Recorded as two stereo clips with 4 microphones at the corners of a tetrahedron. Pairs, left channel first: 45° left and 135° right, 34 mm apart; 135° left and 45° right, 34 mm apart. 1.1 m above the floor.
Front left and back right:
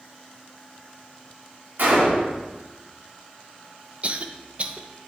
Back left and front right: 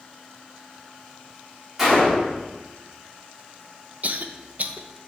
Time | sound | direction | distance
1.8 | a gunshot | 125° right | 2.5 m
4.0 | a cough | 85° right | 0.6 m